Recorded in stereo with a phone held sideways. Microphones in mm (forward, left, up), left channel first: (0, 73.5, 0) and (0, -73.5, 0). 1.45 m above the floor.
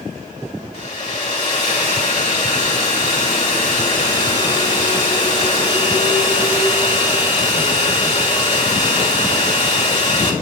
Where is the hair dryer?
50° left (ahead or behind), 2.5 m.